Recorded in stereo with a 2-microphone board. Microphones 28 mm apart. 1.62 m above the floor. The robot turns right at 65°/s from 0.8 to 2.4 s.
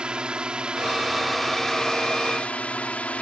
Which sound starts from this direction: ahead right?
A drone, at 0.0 s.